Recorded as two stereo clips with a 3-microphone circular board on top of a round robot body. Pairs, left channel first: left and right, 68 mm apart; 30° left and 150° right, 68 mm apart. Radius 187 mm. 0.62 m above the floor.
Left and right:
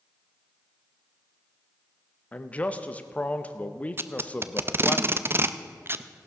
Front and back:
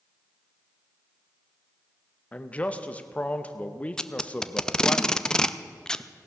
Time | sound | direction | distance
2.3 | a man speaking | 60° left | 0.9 m
4.0 | tape being pulled | 50° right | 0.6 m